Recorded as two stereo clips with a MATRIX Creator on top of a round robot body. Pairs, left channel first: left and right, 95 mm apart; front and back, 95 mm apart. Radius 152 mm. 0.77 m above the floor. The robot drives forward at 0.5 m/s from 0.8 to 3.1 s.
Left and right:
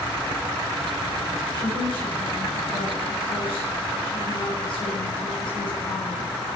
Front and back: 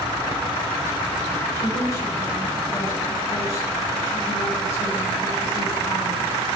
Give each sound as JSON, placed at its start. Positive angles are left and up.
{"t": 1.5, "sound": "a woman speaking", "azimuth_deg": 55, "distance_m": 7.0}